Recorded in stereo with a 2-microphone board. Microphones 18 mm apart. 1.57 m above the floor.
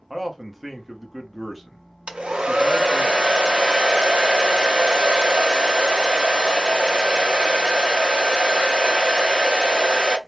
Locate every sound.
0.1 s a man speaking: centre (ahead or behind), 1.1 m
2.1 s a hair dryer: 80° right, 0.7 m